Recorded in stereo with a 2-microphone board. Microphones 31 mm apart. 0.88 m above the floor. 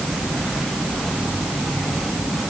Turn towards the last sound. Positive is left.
No sound to turn to.